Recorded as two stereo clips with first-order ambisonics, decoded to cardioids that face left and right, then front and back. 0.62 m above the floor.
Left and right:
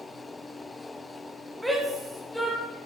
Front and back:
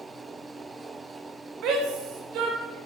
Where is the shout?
175° right, 1.5 m; by 2.8 s 175° left, 2.5 m.